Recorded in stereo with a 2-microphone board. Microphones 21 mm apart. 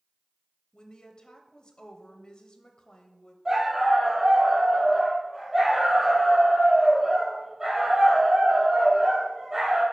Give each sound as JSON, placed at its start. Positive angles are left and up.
{"t": 0.7, "sound": "a woman speaking", "side_deg": 45, "distance_m": 1.1}
{"t": 3.5, "sound": "a dog barking", "side_deg": -20, "distance_m": 2.5}